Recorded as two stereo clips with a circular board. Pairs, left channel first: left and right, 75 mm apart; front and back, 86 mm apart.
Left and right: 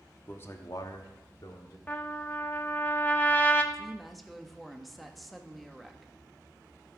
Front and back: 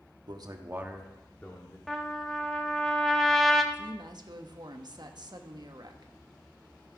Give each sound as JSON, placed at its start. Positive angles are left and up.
{"t": 0.3, "sound": "a man speaking", "azimuth_deg": 150, "distance_m": 1.3}
{"t": 1.9, "sound": "a trumpet", "azimuth_deg": 75, "distance_m": 1.0}
{"t": 3.7, "sound": "a woman speaking", "azimuth_deg": 180, "distance_m": 1.1}